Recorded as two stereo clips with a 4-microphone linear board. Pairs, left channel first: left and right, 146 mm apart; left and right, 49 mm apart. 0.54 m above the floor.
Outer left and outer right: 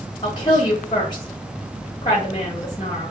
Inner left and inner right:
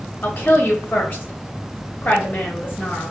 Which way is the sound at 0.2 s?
30° left (ahead or behind).